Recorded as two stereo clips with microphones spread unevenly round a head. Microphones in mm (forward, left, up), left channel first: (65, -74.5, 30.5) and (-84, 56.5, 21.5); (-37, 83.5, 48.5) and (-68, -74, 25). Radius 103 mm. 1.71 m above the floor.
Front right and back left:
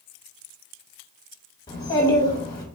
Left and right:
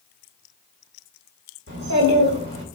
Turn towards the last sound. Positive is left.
turn(degrees=-110)